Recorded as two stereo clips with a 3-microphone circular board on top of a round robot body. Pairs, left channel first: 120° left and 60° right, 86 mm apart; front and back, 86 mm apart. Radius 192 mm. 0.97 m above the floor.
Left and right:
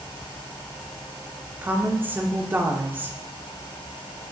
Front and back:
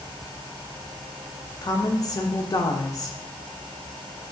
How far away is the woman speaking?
About 0.8 m.